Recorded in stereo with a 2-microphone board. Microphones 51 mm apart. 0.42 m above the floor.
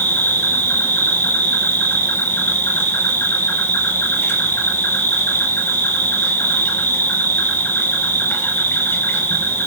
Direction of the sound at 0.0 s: 50° left (ahead or behind).